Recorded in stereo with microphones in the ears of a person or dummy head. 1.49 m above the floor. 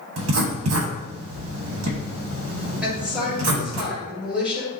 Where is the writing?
85° right, 1.0 m.